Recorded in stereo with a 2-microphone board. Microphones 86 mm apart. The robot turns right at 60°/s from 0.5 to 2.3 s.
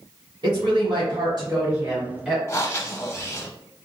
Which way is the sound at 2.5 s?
30° left (ahead or behind).